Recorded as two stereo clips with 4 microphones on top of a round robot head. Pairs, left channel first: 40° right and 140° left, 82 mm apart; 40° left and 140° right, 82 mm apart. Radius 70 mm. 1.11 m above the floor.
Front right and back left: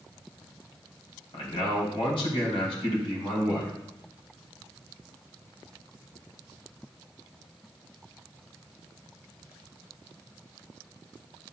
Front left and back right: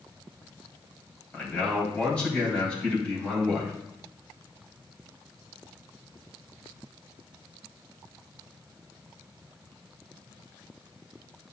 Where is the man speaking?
35° right, 3.5 m.